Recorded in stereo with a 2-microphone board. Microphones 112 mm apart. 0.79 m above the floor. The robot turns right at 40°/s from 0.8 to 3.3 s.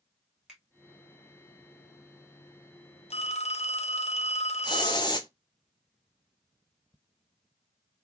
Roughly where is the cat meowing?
I don't hear a cat meowing.